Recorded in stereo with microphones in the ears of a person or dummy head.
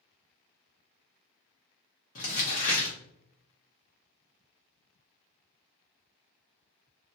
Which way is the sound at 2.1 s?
40° left (ahead or behind).